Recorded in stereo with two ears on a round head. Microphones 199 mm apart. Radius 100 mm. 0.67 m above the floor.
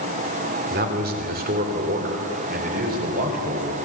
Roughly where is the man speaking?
Right.